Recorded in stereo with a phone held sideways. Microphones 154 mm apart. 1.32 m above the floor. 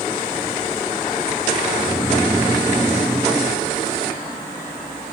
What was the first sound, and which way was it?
Snoring, centre (ahead or behind).